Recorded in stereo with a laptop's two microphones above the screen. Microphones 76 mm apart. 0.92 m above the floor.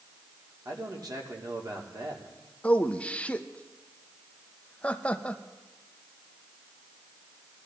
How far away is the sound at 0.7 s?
About 2 m.